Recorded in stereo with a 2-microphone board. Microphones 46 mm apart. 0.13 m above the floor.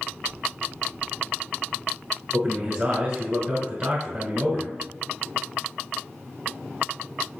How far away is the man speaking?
About 1.1 m.